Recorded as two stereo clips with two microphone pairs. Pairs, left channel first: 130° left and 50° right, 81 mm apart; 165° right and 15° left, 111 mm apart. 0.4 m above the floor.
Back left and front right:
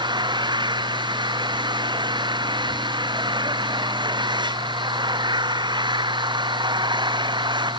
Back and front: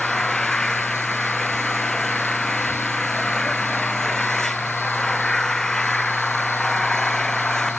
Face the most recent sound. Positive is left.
turn(degrees=-80)